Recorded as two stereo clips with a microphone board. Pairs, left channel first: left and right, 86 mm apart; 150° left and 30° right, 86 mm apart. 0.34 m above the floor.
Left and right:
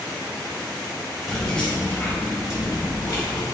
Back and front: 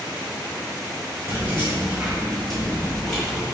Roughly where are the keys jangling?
Ahead.